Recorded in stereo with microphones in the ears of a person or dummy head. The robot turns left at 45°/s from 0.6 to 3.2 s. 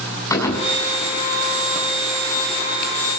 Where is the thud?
10° left (ahead or behind), 6.5 m; by 1.0 s 25° left (ahead or behind), 6.5 m.